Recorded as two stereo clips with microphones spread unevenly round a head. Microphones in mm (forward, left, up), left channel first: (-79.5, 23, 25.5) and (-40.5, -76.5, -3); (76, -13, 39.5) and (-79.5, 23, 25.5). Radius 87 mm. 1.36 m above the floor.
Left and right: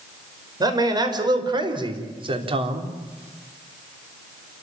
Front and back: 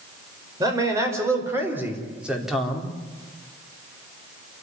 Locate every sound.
0.6 s a man speaking: 125° right, 5 m; by 2.9 s 100° right, 3 m